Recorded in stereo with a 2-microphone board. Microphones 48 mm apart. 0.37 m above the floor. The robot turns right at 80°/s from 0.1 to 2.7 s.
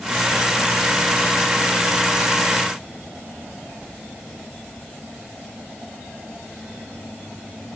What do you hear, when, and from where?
Only background noise.